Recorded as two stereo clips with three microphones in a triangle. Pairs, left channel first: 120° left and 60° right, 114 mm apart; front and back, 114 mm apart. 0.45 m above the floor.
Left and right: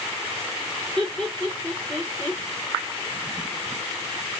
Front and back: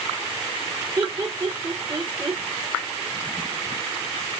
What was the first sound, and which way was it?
Laughter, 150° right.